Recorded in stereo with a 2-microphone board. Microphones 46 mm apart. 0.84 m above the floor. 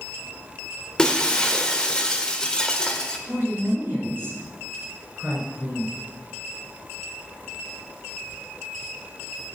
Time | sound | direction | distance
1.0 | breaking glass | 15° left (ahead or behind) | 1.2 m
3.3 | a woman speaking | 35° right (ahead or behind) | 4 m